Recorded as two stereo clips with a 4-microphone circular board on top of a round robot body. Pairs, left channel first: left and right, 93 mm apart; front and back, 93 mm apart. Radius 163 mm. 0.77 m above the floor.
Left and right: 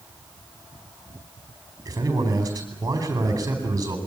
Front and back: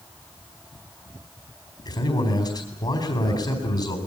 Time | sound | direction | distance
1.9 | a man speaking | 35° right | 4 m